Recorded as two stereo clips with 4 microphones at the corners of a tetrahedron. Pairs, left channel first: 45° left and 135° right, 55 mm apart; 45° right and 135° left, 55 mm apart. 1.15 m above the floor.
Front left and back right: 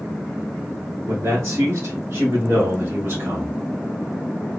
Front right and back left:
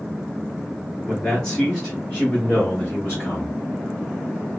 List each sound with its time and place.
1.1 s a man speaking: 120° right, 2 m; by 3.6 s 85° right, 2 m